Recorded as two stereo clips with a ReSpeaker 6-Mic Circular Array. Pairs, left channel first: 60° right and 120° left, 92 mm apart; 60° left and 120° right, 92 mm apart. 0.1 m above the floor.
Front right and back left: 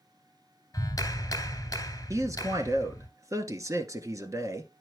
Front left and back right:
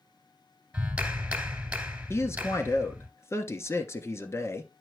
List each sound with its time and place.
0.7 s a clap: 60° right, 1.5 m
2.1 s a man speaking: 95° left, 1.3 m